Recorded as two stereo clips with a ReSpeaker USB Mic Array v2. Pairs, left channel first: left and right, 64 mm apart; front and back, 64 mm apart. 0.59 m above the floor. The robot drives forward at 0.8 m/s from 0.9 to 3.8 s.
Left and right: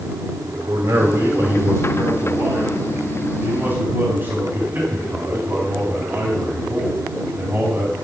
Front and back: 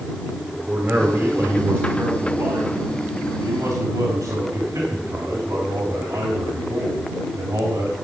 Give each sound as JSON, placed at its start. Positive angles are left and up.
{"t": 0.7, "sound": "a man speaking", "azimuth_deg": -110, "distance_m": 2.0}